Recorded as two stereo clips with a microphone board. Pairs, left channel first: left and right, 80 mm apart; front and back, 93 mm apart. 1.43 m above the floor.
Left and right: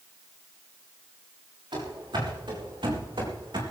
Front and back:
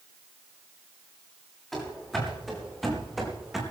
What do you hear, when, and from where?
1.7 s running footsteps: 85° right, 7 m; by 3.6 s 90° right, 4.5 m